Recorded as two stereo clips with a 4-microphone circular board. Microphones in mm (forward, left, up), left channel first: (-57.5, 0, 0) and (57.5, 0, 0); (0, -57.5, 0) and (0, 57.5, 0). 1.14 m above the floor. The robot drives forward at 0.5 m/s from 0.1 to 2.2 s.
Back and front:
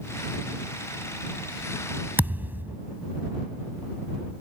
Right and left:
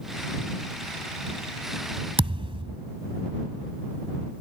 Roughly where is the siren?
No siren in this recording.